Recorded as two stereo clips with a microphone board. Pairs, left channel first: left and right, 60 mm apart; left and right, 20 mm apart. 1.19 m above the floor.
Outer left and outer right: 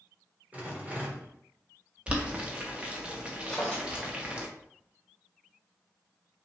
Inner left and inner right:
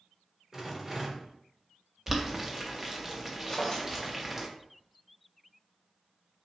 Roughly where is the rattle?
Right.